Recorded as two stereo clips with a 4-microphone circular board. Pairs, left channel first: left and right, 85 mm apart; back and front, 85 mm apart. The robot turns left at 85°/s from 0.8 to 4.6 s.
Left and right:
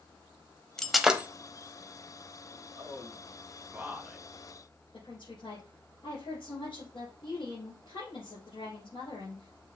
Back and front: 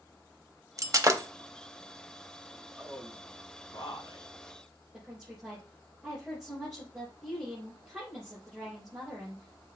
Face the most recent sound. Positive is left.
turn(degrees=85)